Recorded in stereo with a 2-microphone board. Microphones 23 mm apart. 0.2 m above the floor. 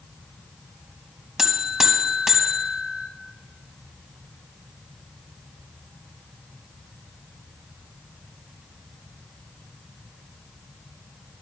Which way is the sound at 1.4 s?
25° right (ahead or behind).